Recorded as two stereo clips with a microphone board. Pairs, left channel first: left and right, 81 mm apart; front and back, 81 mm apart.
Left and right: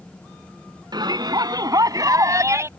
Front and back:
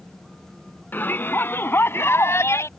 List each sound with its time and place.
0.9 s a shout: 65° right; by 2.7 s 45° right